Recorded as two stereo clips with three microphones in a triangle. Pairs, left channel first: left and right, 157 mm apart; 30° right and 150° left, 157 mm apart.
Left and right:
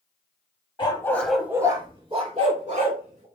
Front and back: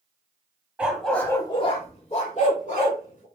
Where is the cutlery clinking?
I don't hear cutlery clinking.